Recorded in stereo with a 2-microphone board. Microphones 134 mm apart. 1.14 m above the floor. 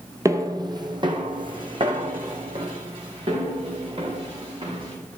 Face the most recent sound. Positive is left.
turn(degrees=-40)  # may be behind; listen again after turning